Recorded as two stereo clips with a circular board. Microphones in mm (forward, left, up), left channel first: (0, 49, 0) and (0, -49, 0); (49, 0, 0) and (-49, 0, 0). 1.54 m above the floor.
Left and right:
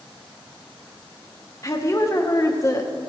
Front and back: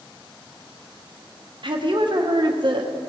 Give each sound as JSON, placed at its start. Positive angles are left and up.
{"t": 1.6, "sound": "a woman speaking", "azimuth_deg": 145, "distance_m": 1.3}